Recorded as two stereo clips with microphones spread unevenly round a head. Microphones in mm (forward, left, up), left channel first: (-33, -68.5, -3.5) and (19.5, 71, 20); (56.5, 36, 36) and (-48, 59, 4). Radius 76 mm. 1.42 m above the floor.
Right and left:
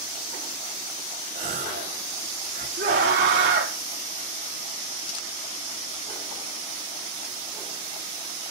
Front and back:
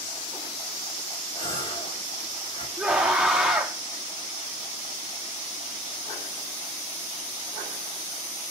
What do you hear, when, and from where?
1.4 s a gasp: 30° left, 4 m
2.8 s a scream: 85° left, 4 m